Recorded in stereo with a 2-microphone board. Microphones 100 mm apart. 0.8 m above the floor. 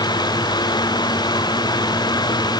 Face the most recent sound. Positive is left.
No sound to turn to.